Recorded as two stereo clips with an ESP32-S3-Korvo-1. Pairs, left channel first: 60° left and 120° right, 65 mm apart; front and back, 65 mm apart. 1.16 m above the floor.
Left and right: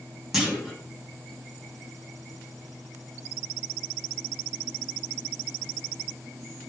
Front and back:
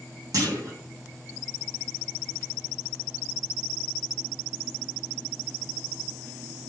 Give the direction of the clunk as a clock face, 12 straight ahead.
7 o'clock.